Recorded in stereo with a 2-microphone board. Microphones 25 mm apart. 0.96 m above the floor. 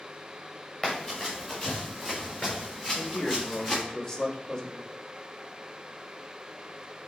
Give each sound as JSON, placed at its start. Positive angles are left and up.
{"t": 0.8, "sound": "running footsteps", "side_deg": 10, "distance_m": 4.0}
{"t": 2.9, "sound": "a man speaking", "side_deg": 20, "distance_m": 1.8}